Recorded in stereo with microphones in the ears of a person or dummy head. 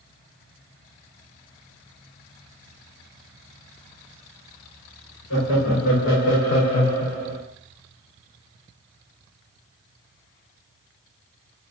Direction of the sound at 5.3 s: 75° left (ahead or behind).